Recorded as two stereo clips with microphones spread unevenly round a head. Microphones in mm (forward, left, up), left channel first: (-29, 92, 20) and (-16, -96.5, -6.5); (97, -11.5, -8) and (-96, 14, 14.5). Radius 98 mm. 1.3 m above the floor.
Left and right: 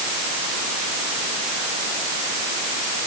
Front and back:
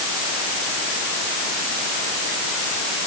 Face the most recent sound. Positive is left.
No sound to turn to.